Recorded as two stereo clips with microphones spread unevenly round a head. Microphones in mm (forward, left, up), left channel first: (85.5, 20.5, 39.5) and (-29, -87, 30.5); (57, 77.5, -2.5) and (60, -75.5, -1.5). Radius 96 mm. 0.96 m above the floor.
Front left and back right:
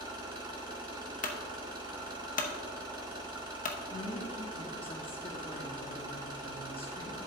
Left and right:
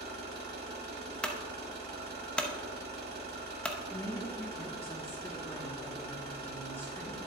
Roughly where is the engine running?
Right.